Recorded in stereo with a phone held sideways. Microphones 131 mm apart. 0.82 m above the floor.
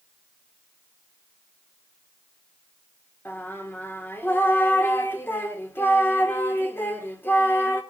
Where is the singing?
15° left (ahead or behind), 1.6 m.